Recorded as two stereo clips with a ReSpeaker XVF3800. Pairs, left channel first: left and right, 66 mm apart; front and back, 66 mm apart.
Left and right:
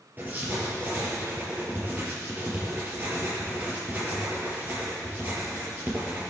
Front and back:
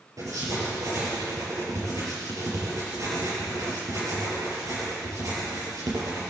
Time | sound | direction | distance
0.2 | writing | 150° right | 5.5 m